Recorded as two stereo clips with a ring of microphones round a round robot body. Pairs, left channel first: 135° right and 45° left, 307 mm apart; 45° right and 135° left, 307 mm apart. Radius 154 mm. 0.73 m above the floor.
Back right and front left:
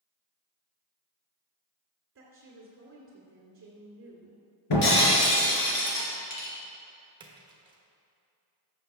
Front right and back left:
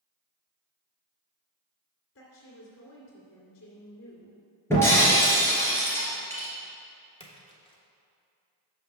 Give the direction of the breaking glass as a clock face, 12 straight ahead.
4 o'clock.